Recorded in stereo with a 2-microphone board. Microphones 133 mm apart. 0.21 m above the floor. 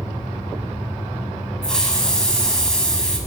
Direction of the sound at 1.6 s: 5° left (ahead or behind).